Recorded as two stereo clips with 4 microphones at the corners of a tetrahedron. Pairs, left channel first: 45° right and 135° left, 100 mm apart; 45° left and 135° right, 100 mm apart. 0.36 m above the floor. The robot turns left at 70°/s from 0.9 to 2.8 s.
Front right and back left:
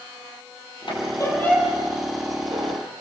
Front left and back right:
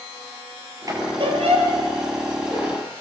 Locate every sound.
0.9 s a squeak: 80° right, 5.5 m; by 2.8 s 145° left, 5.5 m